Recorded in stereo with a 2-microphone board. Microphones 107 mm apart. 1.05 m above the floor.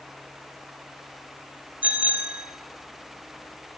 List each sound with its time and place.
1.8 s a bicycle bell: 15° right (ahead or behind), 3 m